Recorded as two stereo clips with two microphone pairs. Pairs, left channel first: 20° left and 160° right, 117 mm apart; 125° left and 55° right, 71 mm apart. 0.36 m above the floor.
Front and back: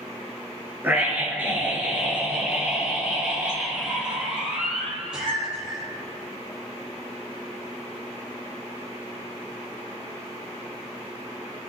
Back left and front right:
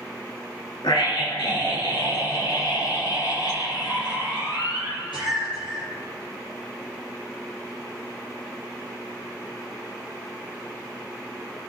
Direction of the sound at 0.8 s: 125° left.